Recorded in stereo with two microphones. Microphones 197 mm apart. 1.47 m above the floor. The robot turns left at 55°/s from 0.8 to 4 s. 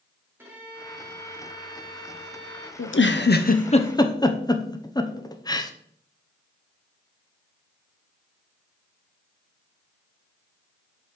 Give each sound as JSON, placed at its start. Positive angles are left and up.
{"t": 0.4, "sound": "a violin", "azimuth_deg": -170, "distance_m": 2.0}
{"t": 2.8, "sound": "a giggle", "side_deg": 85, "distance_m": 0.6}